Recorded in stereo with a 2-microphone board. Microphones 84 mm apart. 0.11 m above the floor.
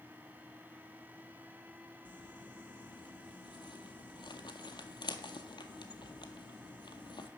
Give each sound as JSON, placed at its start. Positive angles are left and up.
{"t": 2.0, "sound": "crumpling", "side_deg": 65, "distance_m": 0.6}